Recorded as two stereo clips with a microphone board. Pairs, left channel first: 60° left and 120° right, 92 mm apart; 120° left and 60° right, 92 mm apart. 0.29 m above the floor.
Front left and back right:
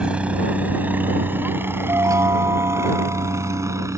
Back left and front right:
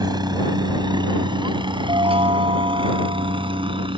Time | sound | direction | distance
0.0 | a helicopter | 45° right | ?
1.9 | a chime | 65° right | ?